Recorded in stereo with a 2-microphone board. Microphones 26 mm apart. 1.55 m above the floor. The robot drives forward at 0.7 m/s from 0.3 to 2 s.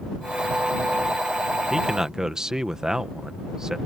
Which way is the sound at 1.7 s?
20° right (ahead or behind).